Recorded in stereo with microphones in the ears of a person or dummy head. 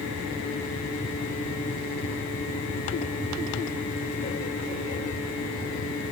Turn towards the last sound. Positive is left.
No sound to turn to.